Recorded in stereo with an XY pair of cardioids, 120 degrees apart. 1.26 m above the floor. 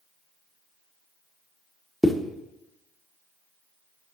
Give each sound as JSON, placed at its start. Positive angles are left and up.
{"t": 2.0, "sound": "a zipper", "azimuth_deg": 5, "distance_m": 1.0}